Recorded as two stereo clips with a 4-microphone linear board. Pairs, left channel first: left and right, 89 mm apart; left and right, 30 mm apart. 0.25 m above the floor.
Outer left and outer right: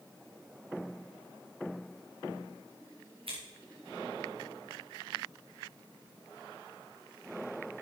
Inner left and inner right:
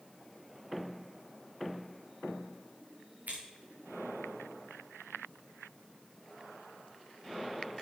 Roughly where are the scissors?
Right.